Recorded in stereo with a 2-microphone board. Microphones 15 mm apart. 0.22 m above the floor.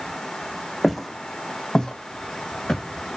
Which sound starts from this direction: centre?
Footsteps, at 0.8 s.